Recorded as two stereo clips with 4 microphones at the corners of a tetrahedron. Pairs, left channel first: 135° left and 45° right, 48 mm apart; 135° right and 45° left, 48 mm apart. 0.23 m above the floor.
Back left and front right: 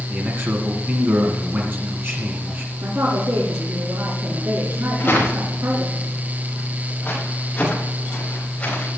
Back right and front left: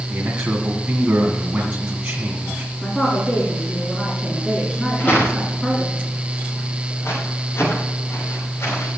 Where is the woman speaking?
60° right, 3 m.